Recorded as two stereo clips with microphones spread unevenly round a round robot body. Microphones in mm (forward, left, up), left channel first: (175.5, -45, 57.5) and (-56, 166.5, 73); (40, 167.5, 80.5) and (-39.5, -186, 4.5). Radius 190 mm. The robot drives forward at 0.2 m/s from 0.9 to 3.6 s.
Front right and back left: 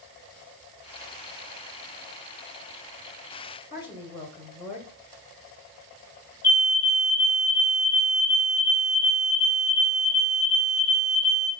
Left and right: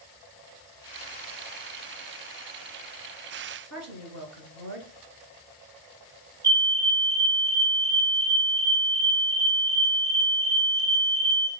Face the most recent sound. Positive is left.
turn(degrees=170)